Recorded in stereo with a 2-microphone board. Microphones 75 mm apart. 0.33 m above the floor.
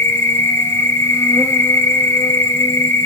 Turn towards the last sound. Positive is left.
turn(degrees=30)  # may be behind; listen again after turning